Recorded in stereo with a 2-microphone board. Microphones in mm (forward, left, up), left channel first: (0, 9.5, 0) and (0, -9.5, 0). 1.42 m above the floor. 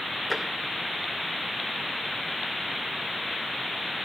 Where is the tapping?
5° right (ahead or behind), 2.5 m.